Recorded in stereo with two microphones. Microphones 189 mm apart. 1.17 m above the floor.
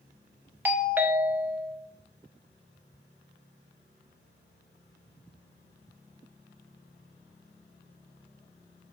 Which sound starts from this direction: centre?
A doorbell, at 0.7 s.